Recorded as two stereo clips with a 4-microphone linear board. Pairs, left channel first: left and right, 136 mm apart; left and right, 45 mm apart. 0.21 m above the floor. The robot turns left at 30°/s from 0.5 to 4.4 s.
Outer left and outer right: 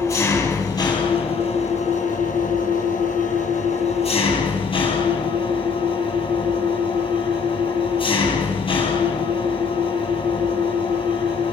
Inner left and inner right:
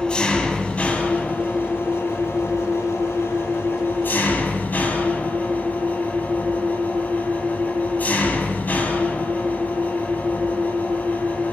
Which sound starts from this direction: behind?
An engine running, at 0.0 s.